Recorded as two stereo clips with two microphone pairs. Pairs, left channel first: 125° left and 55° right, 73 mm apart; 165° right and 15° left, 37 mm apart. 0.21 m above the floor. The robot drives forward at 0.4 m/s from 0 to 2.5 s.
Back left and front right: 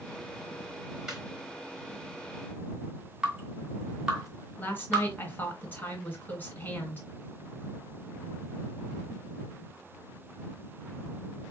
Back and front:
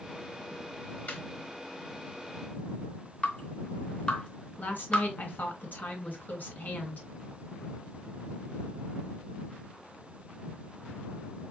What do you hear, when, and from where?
1.1 s laughter: 140° right, 3 m
3.2 s dripping: 130° right, 2 m
4.6 s a woman speaking: 175° right, 2 m